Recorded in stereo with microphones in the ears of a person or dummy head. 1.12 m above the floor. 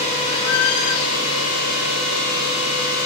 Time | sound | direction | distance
0.3 | a squeak | 85° left | 2.5 m